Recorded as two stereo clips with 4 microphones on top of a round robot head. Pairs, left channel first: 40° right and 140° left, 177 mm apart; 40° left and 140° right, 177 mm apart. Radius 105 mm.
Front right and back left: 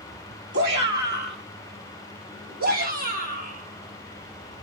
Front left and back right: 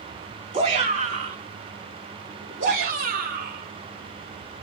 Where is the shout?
165° left, 2.5 m; by 4.6 s 175° right, 5 m.